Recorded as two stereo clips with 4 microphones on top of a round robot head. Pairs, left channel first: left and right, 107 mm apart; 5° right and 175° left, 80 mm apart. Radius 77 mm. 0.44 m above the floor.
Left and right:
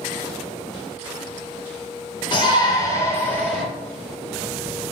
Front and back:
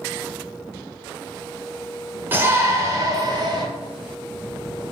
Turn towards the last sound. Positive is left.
turn(degrees=170)